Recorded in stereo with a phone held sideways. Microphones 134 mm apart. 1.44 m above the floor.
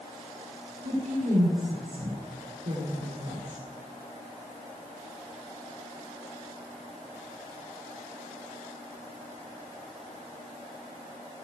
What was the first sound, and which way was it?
A woman speaking, 85° right.